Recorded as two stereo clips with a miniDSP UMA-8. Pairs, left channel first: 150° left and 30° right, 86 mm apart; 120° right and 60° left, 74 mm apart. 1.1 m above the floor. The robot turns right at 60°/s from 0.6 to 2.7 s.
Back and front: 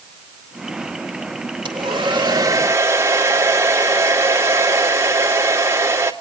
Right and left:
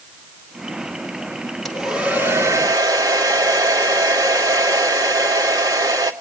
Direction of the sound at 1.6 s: 30° right.